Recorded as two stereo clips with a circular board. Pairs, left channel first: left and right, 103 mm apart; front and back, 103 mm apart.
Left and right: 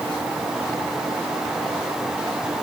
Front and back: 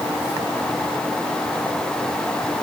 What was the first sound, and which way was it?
Only background noise.